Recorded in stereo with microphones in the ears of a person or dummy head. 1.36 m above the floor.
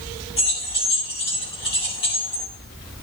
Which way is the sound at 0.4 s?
30° left (ahead or behind).